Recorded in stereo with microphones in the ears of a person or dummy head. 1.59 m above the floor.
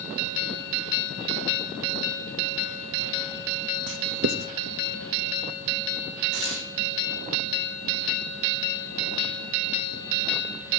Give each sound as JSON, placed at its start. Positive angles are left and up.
{"t": 3.9, "sound": "writing", "side_deg": -55, "distance_m": 0.8}
{"t": 6.3, "sound": "tearing paper", "side_deg": -65, "distance_m": 4.0}